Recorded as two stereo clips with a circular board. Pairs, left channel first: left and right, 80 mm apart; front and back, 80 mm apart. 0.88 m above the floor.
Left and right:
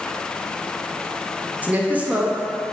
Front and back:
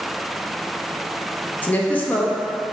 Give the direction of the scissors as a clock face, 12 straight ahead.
I don't hear scissors.